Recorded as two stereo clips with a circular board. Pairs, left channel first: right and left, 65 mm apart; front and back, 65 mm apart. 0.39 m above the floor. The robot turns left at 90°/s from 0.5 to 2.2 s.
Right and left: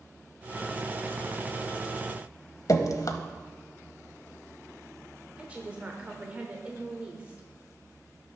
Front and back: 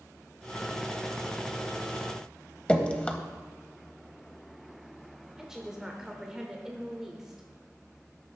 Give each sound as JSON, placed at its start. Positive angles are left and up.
{"t": 2.7, "sound": "dripping", "azimuth_deg": -70, "distance_m": 0.9}
{"t": 5.4, "sound": "a woman speaking", "azimuth_deg": 110, "distance_m": 1.1}